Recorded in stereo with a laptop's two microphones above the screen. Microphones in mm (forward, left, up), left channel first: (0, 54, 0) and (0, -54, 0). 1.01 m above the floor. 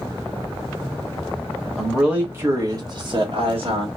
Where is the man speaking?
Centre (ahead or behind), 1.2 m; by 3.9 s 60° right (ahead or behind), 1.8 m.